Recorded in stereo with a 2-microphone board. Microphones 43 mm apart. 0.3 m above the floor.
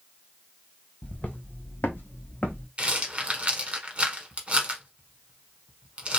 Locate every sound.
1.0 s footsteps: 40° left (ahead or behind), 0.7 m
2.8 s a rattle: 35° right (ahead or behind), 0.8 m